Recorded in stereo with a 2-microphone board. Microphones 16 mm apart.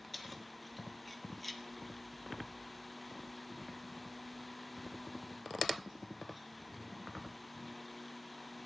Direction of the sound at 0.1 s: 5° left (ahead or behind).